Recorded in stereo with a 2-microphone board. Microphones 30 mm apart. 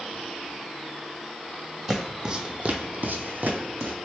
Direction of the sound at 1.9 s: 10° right (ahead or behind).